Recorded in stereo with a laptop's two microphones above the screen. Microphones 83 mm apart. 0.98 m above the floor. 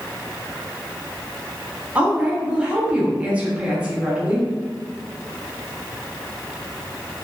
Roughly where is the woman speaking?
Centre.